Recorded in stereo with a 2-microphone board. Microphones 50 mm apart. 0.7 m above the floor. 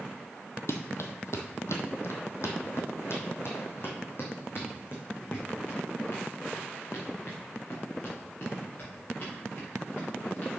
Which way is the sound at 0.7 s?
65° left (ahead or behind).